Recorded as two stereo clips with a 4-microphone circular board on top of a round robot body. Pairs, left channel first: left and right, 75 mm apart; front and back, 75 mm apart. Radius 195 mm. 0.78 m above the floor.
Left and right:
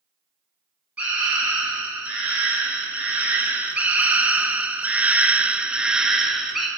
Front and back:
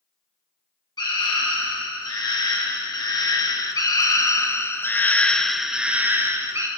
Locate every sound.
1.0 s a scream: 20° right, 3 m; by 6.7 s straight behind, 1.1 m